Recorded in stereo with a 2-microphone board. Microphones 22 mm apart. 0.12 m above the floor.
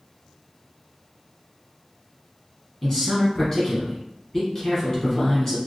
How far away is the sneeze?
No sneeze in this recording.